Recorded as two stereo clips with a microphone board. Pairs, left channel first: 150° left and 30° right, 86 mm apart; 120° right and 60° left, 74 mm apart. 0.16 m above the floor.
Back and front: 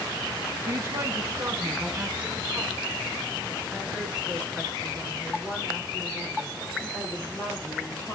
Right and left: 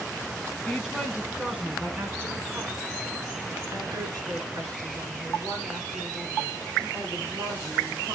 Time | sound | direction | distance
0.7 | a woman speaking | 35° right | 1.8 m